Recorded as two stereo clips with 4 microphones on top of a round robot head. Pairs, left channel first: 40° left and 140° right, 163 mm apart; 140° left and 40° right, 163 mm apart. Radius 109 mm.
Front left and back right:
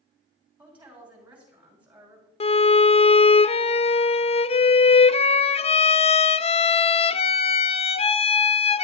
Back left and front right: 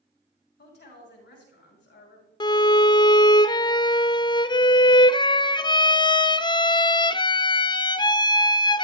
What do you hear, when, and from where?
0.6 s a woman speaking: 140° left, 6 m
2.4 s a violin: 85° left, 0.5 m